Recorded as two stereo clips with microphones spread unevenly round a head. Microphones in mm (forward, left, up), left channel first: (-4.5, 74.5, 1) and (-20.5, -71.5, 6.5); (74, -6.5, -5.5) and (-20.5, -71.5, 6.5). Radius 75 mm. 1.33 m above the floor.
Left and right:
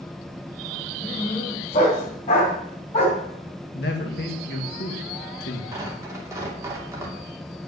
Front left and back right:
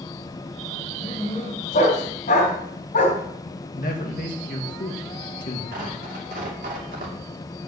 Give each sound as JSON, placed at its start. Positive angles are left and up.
{"t": 1.0, "sound": "a dog barking", "azimuth_deg": 35, "distance_m": 3.5}
{"t": 3.8, "sound": "a man speaking", "azimuth_deg": 60, "distance_m": 2.0}
{"t": 5.7, "sound": "tearing paper", "azimuth_deg": -165, "distance_m": 2.5}